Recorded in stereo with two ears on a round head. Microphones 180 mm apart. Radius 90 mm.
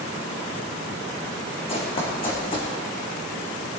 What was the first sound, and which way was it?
Running footsteps, 30° left (ahead or behind).